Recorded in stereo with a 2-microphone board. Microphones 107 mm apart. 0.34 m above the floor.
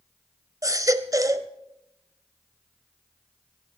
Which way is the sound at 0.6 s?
30° right (ahead or behind).